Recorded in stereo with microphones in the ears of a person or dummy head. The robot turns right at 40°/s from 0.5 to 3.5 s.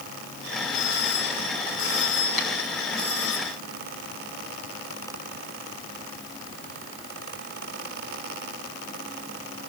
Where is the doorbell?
55° left, 9.5 m; by 3.4 s 160° left, 9.5 m.